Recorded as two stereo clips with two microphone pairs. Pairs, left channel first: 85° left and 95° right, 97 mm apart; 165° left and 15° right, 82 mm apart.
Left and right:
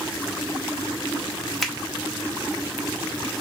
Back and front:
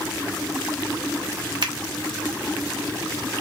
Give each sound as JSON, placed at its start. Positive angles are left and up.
{"t": 1.6, "sound": "a finger snap", "azimuth_deg": 0, "distance_m": 1.0}